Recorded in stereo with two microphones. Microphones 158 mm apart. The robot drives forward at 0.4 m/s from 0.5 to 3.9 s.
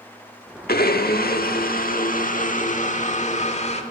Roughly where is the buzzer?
No buzzer in this recording.